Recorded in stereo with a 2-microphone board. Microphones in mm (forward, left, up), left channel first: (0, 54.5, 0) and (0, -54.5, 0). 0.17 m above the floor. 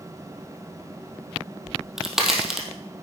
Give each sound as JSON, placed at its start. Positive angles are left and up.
{"t": 1.7, "sound": "a crack", "side_deg": -5, "distance_m": 2.5}